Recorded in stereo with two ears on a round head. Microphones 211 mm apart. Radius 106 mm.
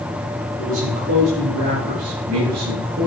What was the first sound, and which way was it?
A man speaking, 60° right (ahead or behind).